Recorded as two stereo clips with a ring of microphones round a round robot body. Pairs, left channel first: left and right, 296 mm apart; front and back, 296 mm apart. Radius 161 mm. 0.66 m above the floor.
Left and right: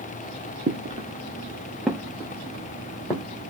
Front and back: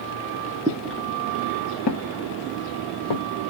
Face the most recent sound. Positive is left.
turn(degrees=10)